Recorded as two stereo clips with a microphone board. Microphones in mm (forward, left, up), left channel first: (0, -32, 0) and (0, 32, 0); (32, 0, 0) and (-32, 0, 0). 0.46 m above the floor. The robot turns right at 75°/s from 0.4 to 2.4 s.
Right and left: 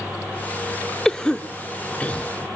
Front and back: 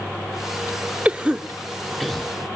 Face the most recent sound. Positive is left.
turn(degrees=-55)